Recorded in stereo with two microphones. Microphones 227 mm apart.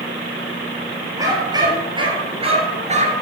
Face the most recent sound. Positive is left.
turn(degrees=-35)  # may be behind; listen again after turning